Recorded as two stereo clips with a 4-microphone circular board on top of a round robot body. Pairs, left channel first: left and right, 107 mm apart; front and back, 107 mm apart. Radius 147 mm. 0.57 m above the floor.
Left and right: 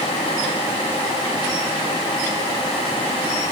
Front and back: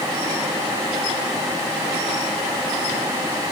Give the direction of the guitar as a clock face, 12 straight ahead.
No guitar in this recording.